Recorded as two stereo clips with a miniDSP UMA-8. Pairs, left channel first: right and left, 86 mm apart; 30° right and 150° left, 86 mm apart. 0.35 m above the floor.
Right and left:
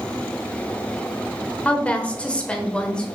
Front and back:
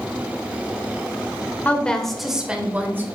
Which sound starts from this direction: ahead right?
A woman speaking, at 1.6 s.